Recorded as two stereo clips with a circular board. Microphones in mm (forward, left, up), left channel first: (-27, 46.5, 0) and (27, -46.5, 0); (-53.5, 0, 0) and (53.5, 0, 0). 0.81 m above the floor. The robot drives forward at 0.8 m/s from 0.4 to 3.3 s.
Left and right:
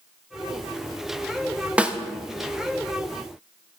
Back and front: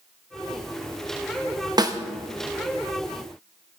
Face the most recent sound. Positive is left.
turn(degrees=170)